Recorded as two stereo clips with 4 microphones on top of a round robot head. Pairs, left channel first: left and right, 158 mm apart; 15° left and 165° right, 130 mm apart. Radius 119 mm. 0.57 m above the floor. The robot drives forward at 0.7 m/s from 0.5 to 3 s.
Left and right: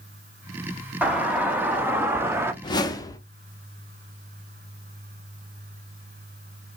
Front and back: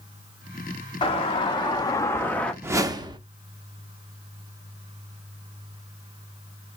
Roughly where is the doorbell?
Ahead.